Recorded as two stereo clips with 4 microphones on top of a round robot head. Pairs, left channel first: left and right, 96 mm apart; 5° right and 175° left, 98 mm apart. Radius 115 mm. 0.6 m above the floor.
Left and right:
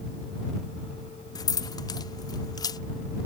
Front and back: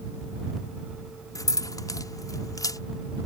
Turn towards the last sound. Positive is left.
turn(degrees=45)